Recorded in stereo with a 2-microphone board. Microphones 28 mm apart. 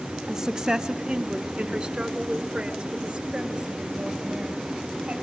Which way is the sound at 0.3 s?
15° right (ahead or behind).